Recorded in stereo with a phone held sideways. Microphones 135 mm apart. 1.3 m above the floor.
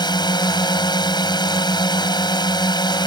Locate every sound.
0.0 s a drone: 35° left (ahead or behind)